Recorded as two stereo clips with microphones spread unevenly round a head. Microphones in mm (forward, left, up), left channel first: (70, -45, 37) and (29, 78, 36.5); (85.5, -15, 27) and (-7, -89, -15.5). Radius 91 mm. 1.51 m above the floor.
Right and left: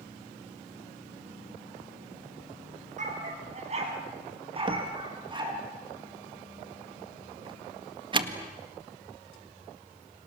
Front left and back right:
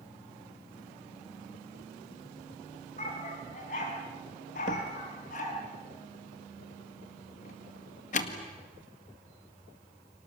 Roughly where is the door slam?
Ahead left.